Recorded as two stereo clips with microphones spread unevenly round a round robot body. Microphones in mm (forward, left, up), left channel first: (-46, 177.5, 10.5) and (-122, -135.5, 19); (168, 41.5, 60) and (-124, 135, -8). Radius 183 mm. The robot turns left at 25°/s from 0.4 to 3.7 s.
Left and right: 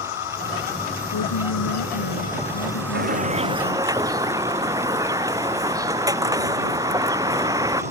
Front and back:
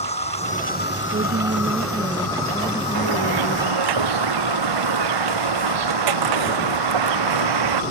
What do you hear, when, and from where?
0.0 s an insect: 55° left; by 7.9 s 30° right
1.1 s a woman speaking: 105° left; by 3.9 s 40° left
2.9 s a bird: 165° right; by 7.8 s 175° left